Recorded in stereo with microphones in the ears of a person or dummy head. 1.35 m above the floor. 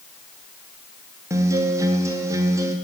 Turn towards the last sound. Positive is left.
turn(degrees=-15)  # may be behind; listen again after turning